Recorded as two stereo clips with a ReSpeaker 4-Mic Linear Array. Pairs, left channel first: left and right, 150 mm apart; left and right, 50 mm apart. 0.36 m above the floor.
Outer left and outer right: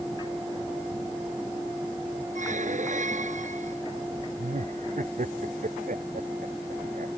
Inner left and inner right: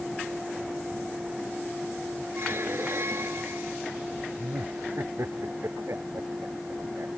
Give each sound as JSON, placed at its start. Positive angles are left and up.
{"t": 2.4, "sound": "a squeak", "side_deg": -55}
{"t": 4.4, "sound": "laughter", "side_deg": -60}